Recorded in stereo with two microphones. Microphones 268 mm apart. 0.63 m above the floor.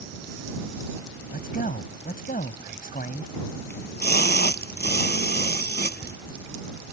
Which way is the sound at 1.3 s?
35° left (ahead or behind).